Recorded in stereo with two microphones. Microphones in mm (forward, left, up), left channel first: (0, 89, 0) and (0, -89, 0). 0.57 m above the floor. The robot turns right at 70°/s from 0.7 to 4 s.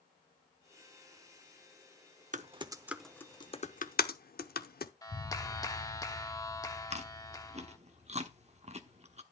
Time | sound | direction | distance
2.3 | typing on a keyboard | 45° right (ahead or behind) | 0.8 m
5.0 | a clap | 20° left (ahead or behind) | 0.9 m
6.9 | chewing | 40° right (ahead or behind) | 1.0 m